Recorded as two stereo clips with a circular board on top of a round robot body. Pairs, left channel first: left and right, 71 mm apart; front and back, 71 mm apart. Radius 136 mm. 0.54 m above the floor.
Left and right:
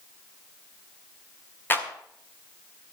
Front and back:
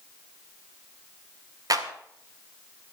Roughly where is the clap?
Behind left.